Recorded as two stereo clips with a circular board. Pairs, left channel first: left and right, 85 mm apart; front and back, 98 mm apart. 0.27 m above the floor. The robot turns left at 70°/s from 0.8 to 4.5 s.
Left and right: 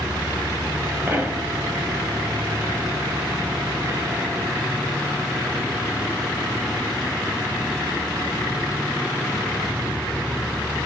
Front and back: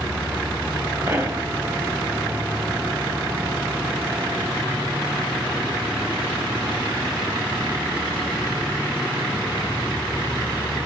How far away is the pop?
About 1.6 m.